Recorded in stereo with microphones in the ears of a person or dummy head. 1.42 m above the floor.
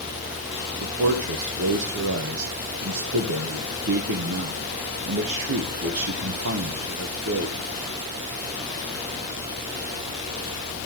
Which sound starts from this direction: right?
A man speaking, at 0.8 s.